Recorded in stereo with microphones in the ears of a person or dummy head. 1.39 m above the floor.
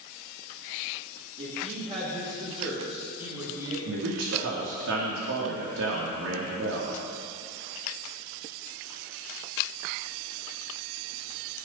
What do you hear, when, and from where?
1.4 s a woman speaking: 40° right (ahead or behind), 3.5 m; by 3.8 s 20° right (ahead or behind), 7 m
3.9 s a man speaking: 75° right (ahead or behind), 2.5 m